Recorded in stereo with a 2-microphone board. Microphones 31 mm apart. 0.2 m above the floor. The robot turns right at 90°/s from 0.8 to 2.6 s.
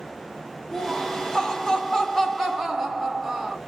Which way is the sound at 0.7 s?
20° left.